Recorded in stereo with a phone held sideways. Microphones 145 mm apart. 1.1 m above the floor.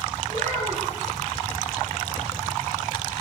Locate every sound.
0.3 s a child speaking: 60° right (ahead or behind), 2 m